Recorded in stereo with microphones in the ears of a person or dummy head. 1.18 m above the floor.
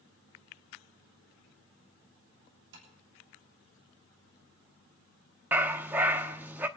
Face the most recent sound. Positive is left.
turn(degrees=-15)  # may be behind; listen again after turning